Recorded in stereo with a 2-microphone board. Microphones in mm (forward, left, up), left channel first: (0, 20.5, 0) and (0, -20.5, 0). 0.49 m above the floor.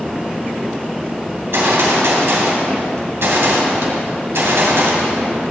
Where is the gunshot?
75° right (ahead or behind), 2.5 m.